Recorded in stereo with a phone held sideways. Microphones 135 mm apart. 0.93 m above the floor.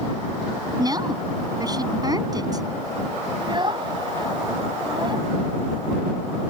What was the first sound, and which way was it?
A woman speaking, 30° right (ahead or behind).